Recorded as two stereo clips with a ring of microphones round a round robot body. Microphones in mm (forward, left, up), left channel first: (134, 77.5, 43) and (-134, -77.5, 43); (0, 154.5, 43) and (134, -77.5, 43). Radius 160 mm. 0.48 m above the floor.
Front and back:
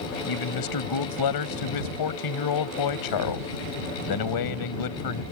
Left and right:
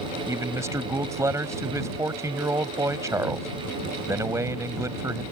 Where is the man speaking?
20° left.